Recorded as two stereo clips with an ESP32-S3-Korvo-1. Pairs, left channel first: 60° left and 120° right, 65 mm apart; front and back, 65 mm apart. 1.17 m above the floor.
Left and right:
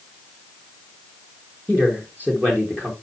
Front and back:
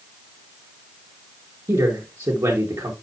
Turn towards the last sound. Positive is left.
turn(degrees=175)